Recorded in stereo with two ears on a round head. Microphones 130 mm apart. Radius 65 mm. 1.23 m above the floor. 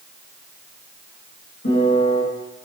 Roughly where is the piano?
Left.